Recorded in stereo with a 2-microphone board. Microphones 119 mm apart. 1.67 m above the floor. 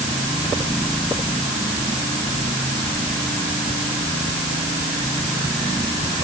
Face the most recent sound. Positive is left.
No sound to turn to.